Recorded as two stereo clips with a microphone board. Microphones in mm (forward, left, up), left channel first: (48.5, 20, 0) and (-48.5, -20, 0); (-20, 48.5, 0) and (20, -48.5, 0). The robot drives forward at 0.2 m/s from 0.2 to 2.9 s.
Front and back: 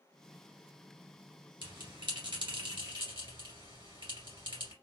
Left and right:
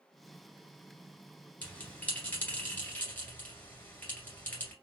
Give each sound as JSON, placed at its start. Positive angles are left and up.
{"t": 1.6, "sound": "a bell", "azimuth_deg": -175, "distance_m": 2.0}